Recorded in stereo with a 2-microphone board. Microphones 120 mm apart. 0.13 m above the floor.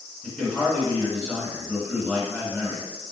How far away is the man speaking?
About 1.8 m.